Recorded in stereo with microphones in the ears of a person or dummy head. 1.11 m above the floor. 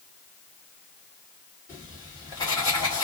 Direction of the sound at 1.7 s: 20° left (ahead or behind).